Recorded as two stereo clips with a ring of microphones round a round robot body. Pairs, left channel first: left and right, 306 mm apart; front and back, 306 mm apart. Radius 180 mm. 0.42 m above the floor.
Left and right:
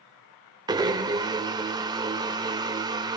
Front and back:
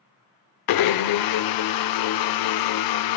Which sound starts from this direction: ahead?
A blender, at 0.7 s.